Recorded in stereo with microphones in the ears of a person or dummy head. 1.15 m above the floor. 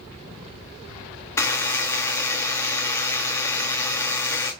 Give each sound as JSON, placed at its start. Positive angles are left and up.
{"t": 1.4, "sound": "a buzzer", "side_deg": 15, "distance_m": 0.6}